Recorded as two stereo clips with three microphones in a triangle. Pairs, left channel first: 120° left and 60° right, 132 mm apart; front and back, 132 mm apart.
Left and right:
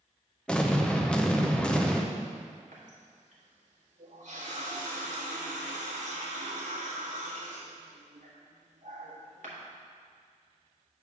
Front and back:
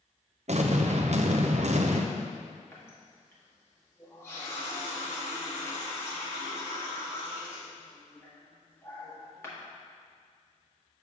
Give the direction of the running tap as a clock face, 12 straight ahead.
2 o'clock.